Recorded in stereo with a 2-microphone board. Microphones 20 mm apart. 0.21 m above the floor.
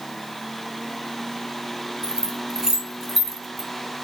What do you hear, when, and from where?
2.0 s keys jangling: 30° right (ahead or behind), 1.2 m; by 3.7 s 5° right (ahead or behind), 1.0 m